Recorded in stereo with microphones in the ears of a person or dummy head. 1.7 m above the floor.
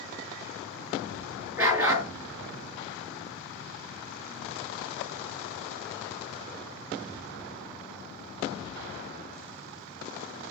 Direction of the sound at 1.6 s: 15° right (ahead or behind).